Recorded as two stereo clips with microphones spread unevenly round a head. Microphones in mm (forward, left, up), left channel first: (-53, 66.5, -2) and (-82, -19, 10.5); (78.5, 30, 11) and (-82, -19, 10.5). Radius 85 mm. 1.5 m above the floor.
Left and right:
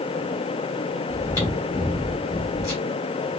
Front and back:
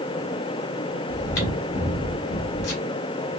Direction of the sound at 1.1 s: Straight ahead.